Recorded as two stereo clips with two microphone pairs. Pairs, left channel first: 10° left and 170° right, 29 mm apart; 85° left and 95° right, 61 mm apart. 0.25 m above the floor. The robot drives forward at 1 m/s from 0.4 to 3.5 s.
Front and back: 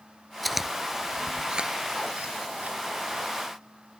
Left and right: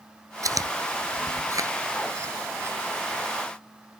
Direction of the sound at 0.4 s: 85° right.